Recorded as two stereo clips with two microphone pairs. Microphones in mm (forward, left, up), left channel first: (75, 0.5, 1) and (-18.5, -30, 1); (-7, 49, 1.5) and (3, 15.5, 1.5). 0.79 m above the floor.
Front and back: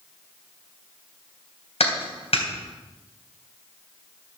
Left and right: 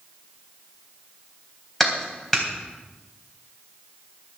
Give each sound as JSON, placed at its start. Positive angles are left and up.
{"t": 1.8, "sound": "a clap", "azimuth_deg": 25, "distance_m": 3.5}